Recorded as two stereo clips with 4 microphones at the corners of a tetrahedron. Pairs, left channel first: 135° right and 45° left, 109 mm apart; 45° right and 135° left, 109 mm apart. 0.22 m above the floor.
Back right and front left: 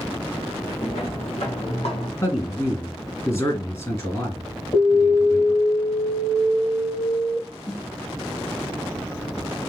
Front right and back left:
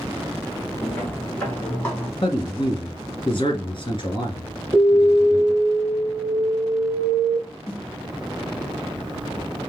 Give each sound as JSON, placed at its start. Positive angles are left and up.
{"t": 0.8, "sound": "footsteps", "azimuth_deg": -115, "distance_m": 3.5}
{"t": 2.2, "sound": "a man speaking", "azimuth_deg": -80, "distance_m": 2.5}
{"t": 4.7, "sound": "an alarm", "azimuth_deg": -90, "distance_m": 2.5}
{"t": 7.7, "sound": "a snare drum", "azimuth_deg": -90, "distance_m": 3.5}